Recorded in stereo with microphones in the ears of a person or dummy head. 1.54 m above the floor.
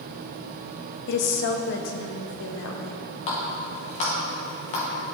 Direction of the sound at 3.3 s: 35° left (ahead or behind).